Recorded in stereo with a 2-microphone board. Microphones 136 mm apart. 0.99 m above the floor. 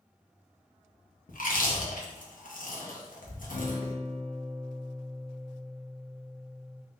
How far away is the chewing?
About 0.8 m.